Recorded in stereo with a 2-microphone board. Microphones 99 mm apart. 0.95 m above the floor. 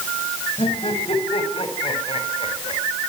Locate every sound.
0.6 s laughter: 65° left (ahead or behind), 7.5 m; by 2.8 s 75° left (ahead or behind), 6.5 m